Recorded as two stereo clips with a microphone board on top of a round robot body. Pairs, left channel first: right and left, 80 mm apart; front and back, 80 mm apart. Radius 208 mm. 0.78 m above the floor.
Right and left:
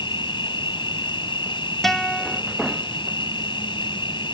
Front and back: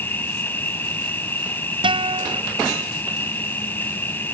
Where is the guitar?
175° right.